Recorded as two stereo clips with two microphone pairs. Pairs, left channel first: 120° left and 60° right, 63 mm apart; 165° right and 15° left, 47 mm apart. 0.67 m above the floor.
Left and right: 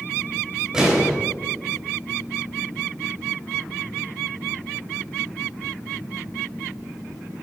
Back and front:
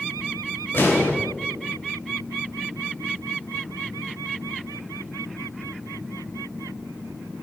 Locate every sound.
0.7 s an explosion: 135° right, 3 m